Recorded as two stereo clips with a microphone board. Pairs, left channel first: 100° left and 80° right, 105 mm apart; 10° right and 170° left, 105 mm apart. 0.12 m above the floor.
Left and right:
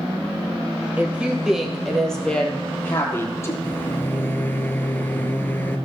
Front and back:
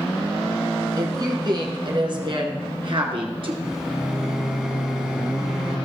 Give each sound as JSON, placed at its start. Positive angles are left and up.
{"t": 1.0, "sound": "a woman speaking", "azimuth_deg": -150, "distance_m": 1.9}
{"t": 3.6, "sound": "a microwave", "azimuth_deg": 95, "distance_m": 0.9}